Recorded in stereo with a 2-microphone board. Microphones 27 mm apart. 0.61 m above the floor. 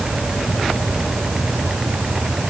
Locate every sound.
Only background noise.